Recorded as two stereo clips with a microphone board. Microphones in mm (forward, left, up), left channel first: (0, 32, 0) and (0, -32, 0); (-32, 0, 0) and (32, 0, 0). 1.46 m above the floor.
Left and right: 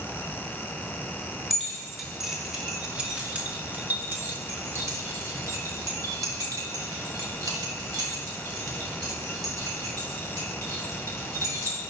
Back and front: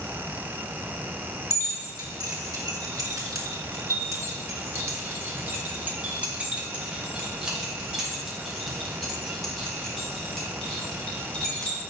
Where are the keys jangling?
Straight ahead, 2.5 m; by 11.8 s 105° right, 4.5 m.